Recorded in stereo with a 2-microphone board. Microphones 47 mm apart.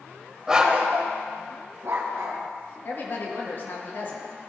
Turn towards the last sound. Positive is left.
turn(degrees=50)  # may be behind; listen again after turning